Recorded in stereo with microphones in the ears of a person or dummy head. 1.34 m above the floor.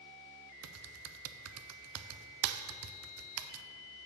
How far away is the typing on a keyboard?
About 0.5 m.